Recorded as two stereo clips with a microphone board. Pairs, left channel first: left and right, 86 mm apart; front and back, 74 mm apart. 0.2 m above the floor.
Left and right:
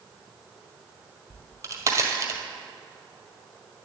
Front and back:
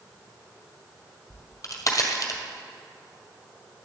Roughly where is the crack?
Ahead right.